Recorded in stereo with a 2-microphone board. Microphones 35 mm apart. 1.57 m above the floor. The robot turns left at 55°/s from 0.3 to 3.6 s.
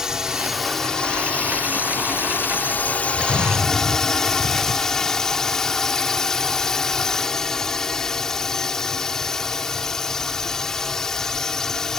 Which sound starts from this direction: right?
An explosion, at 3.1 s.